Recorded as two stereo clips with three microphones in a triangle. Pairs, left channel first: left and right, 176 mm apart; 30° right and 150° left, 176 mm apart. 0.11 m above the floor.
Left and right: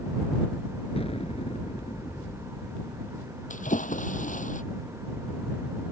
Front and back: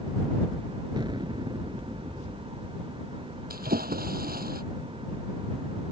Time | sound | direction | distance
1.0 | an explosion | 110° left | ?
3.5 | a splash | 125° left | ?